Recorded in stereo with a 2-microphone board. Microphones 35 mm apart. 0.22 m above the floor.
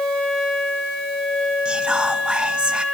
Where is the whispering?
35° right (ahead or behind), 1.5 m.